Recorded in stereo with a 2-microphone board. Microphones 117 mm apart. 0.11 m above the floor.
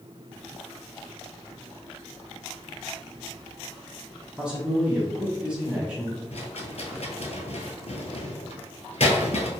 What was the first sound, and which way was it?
A man speaking, 10° right (ahead or behind).